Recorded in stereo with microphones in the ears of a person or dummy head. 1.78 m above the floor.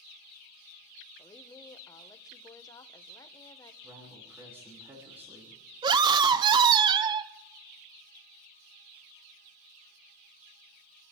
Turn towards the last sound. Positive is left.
turn(degrees=-25)  # may be behind; listen again after turning